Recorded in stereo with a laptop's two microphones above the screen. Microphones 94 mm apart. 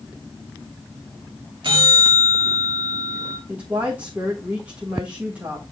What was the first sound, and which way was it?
A bell, 60° right (ahead or behind).